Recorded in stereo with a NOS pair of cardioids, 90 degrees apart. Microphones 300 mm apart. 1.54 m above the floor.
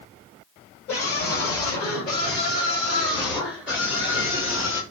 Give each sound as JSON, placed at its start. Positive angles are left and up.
{"t": 0.9, "sound": "a scream", "azimuth_deg": 50, "distance_m": 6.5}